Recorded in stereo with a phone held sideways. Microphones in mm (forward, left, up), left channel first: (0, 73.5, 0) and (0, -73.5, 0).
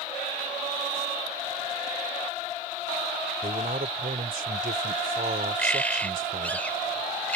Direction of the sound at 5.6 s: 10° left (ahead or behind).